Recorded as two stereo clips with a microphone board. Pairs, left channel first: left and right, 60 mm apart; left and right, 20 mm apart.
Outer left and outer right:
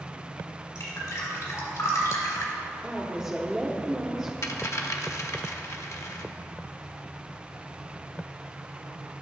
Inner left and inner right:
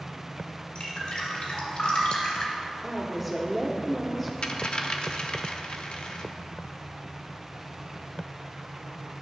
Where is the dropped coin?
55° left (ahead or behind), 0.6 m.